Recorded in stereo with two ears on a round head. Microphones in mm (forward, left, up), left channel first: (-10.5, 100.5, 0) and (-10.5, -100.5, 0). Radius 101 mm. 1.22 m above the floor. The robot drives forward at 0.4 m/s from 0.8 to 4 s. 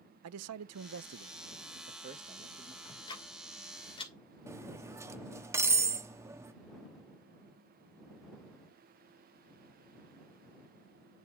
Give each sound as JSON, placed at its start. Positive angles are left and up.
{"t": 0.2, "sound": "a man speaking", "side_deg": -75, "distance_m": 0.5}
{"t": 2.9, "sound": "ticking", "side_deg": 20, "distance_m": 3.0}
{"t": 4.5, "sound": "cutlery clinking", "side_deg": -15, "distance_m": 1.2}